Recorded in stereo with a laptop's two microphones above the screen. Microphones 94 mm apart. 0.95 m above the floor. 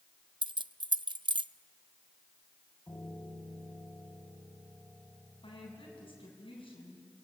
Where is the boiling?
I don't hear boiling.